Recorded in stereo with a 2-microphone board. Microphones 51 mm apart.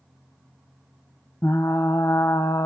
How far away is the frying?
About 1.2 m.